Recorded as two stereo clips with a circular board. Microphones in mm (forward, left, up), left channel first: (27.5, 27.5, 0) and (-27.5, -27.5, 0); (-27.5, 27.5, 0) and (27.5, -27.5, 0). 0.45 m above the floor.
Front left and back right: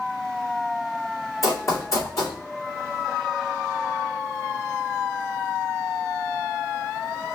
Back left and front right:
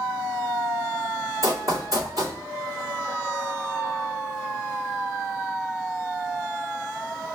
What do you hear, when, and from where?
1.4 s running footsteps: 5° right, 2.5 m